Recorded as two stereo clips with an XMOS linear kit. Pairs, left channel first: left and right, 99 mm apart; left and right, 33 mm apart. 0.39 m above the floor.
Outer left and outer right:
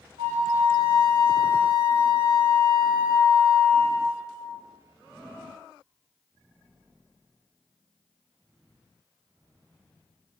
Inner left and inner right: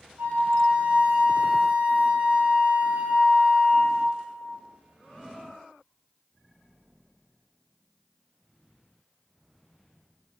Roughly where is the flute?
Right.